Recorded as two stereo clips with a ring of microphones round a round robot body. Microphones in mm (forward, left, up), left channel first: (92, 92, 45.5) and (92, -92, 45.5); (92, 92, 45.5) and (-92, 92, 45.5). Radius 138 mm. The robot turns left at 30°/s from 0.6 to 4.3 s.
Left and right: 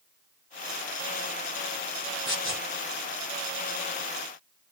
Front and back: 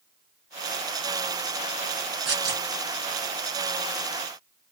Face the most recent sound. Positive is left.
turn(degrees=105)